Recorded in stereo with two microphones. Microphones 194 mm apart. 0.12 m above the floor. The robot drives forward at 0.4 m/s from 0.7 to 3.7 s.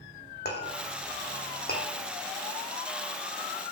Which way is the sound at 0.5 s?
60° left (ahead or behind).